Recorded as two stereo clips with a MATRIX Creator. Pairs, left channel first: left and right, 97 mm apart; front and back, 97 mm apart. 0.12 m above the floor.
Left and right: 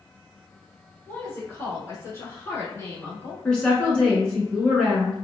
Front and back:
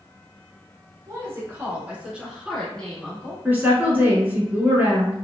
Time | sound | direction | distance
1.1 | a woman speaking | 145° left | 1.5 m
3.5 | a woman speaking | 155° left | 1.1 m